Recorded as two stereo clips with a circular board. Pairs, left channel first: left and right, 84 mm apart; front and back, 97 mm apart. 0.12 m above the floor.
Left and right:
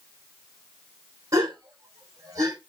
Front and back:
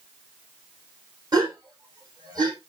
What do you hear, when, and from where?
1.3 s a gasp: 135° right, 5 m